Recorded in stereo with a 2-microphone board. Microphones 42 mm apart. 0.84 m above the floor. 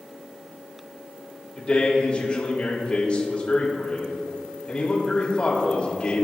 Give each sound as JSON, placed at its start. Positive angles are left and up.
{"t": 1.6, "sound": "a man speaking", "side_deg": 25, "distance_m": 3.0}